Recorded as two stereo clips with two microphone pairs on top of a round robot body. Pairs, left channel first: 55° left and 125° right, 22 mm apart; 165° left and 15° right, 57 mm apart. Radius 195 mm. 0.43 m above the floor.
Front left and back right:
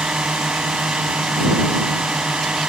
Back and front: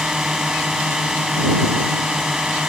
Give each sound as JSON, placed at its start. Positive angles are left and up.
{"t": 0.0, "sound": "a drone", "azimuth_deg": -95}